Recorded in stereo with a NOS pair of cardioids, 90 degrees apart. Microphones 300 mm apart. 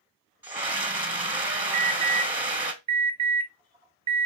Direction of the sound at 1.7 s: 20° right.